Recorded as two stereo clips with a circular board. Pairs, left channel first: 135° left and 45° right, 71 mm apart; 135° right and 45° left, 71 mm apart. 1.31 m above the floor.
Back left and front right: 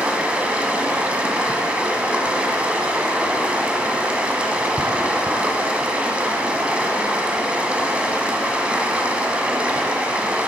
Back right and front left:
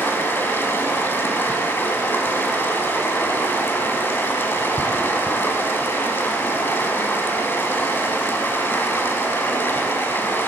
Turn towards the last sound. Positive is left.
turn(degrees=-105)